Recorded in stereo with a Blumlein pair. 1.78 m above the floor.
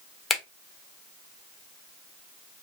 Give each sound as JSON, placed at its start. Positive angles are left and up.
{"t": 0.3, "sound": "a finger snap", "azimuth_deg": 10, "distance_m": 0.9}